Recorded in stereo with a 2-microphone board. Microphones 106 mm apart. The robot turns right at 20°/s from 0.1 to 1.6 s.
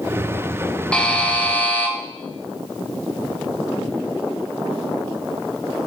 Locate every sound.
0.9 s a buzzer: 10° left (ahead or behind), 1.5 m; by 1.9 s 15° left (ahead or behind), 1.5 m